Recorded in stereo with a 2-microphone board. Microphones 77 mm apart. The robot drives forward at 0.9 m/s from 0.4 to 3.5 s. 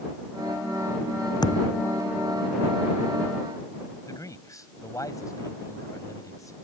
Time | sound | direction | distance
1.4 | a thud | 60° left (ahead or behind) | ?
4.1 | a man speaking | 45° left (ahead or behind) | ?